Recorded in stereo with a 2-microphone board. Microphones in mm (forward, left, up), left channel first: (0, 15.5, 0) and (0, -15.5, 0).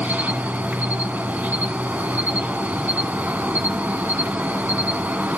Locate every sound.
0.0 s an insect: 65° right (ahead or behind), 0.7 m